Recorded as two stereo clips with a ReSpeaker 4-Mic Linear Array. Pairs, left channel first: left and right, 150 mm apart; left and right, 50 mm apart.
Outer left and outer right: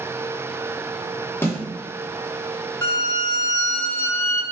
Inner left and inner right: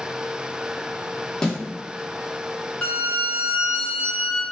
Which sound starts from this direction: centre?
A snare drum, at 1.4 s.